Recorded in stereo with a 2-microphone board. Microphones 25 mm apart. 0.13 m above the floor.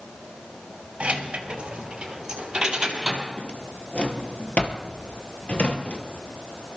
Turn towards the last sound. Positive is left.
turn(degrees=45)  # may be behind; listen again after turning